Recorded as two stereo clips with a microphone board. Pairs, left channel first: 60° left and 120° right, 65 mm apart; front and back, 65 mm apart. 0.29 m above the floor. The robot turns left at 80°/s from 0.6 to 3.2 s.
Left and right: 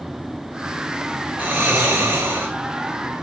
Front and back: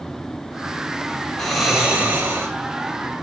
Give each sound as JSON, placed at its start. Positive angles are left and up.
{"t": 1.4, "sound": "snoring", "azimuth_deg": -75, "distance_m": 1.1}